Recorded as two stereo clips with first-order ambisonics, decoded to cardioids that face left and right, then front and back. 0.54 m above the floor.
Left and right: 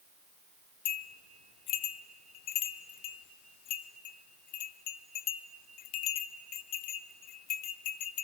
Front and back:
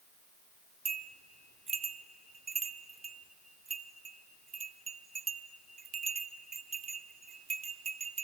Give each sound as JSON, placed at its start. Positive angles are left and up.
{"t": 0.8, "sound": "a bell", "azimuth_deg": 115, "distance_m": 0.8}